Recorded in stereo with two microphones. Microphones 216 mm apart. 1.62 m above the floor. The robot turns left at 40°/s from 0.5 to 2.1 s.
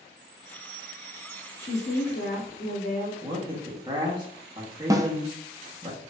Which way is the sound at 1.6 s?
25° left (ahead or behind).